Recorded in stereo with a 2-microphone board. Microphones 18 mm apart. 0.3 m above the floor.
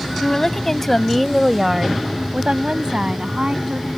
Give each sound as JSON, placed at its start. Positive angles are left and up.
{"t": 0.2, "sound": "a woman speaking", "side_deg": 30}